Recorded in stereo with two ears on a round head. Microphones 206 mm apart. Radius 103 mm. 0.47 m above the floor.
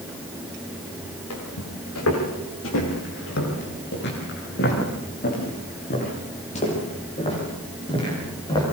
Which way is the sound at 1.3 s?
75° left (ahead or behind).